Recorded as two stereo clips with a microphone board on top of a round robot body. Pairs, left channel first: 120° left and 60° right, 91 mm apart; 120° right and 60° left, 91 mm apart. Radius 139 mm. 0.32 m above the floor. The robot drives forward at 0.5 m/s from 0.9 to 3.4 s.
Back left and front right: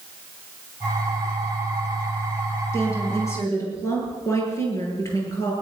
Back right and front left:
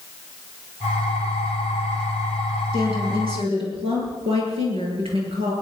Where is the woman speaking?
60° left, 9.5 m.